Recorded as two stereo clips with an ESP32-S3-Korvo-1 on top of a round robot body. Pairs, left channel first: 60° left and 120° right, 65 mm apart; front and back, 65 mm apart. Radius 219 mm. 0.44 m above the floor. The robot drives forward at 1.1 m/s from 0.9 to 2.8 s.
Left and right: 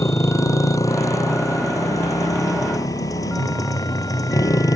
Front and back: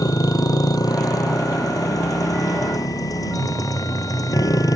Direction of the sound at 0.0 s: 25° left.